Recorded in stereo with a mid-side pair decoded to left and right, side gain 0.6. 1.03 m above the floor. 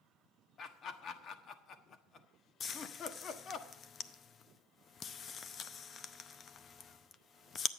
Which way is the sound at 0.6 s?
45° left.